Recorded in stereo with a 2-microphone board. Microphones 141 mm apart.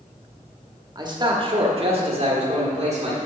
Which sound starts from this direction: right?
A man speaking, at 0.9 s.